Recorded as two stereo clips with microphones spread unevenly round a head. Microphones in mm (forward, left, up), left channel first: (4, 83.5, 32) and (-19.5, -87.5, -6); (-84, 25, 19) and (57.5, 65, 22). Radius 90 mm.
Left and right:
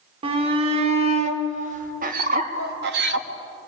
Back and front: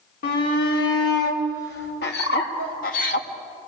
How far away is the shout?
About 4 m.